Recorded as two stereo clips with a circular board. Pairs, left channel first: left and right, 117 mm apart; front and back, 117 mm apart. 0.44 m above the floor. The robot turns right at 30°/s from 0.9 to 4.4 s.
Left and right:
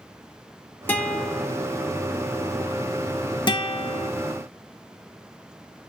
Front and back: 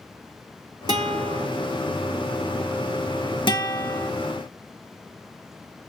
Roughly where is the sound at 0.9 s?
Behind left.